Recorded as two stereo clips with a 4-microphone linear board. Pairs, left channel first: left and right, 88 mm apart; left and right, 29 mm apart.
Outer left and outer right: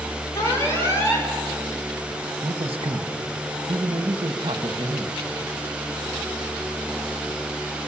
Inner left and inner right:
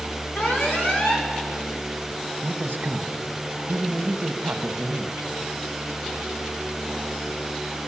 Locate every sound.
0.3 s an alarm: 35° left (ahead or behind), 4 m
2.4 s a man speaking: 85° right, 1.1 m